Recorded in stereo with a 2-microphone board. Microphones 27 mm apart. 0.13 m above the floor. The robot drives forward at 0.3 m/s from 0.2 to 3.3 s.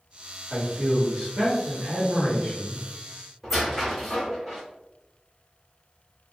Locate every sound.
0.5 s a man speaking: 50° right (ahead or behind), 1.5 m; by 2.9 s 40° right (ahead or behind), 1.7 m
3.4 s a squeak: centre (ahead or behind), 1.1 m